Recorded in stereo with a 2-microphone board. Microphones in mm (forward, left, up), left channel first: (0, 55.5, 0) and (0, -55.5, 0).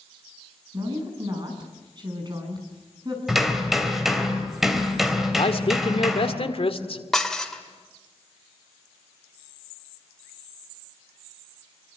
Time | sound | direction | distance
0.7 | a woman speaking | 40° right (ahead or behind) | 6.5 m
3.3 | hammering | centre (ahead or behind) | 3 m
5.4 | a man speaking | 60° left (ahead or behind) | 1.8 m
7.1 | dishes clattering | centre (ahead or behind) | 1.9 m